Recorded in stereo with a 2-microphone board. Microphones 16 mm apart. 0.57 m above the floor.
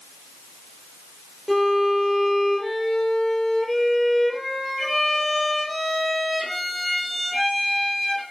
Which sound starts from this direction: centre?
A violin, at 1.5 s.